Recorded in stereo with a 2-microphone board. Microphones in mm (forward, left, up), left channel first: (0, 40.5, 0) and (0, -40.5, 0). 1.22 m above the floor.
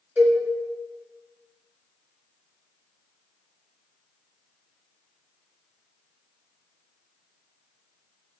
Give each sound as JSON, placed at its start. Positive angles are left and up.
{"t": 0.2, "sound": "a cowbell", "side_deg": -20, "distance_m": 1.1}